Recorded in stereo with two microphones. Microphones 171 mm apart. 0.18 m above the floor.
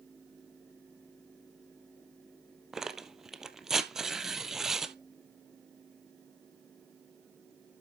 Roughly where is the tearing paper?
Centre.